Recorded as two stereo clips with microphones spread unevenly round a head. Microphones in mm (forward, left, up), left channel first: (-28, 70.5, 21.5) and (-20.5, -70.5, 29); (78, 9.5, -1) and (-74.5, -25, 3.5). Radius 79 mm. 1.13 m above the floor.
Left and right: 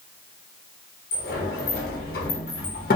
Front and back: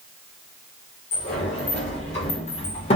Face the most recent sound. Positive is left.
turn(degrees=65)